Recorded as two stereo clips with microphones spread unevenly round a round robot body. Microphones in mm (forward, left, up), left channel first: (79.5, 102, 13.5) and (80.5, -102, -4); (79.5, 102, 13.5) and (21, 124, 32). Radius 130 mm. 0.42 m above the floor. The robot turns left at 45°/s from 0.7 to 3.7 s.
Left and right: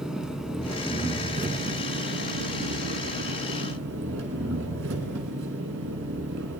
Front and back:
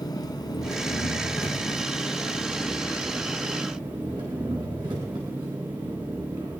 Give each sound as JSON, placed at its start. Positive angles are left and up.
{"t": 0.0, "sound": "an engine running", "azimuth_deg": 0, "distance_m": 1.8}